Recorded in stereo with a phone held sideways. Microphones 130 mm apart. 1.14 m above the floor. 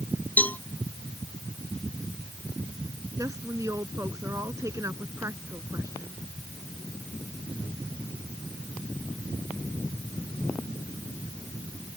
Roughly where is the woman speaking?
Right.